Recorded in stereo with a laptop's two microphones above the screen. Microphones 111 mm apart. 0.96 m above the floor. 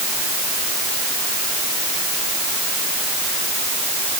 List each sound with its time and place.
Only background noise.